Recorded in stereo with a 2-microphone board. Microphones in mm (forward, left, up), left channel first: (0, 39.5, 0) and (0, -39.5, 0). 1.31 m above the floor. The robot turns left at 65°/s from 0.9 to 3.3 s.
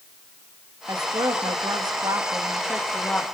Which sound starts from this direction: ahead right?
A woman speaking, at 0.9 s.